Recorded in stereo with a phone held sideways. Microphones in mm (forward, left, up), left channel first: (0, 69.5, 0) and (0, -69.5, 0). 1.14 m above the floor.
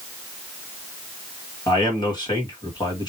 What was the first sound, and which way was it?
A man speaking, 30° left (ahead or behind).